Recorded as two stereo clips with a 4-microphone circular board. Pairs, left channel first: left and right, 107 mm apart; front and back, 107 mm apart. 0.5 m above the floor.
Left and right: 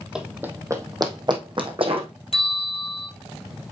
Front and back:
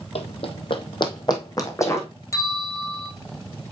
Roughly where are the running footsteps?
Ahead.